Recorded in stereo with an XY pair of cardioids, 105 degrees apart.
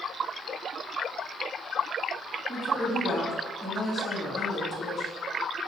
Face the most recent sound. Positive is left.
turn(degrees=20)